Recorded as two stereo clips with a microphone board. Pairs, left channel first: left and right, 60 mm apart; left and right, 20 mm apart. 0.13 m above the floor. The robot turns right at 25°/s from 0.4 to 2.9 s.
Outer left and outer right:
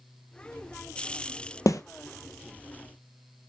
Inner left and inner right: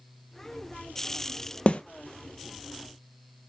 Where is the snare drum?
60° left (ahead or behind), 0.8 m; by 1.8 s 65° left (ahead or behind), 0.8 m.